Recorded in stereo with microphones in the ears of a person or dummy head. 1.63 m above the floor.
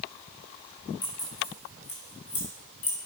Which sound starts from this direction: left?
Keys jangling, at 1.0 s.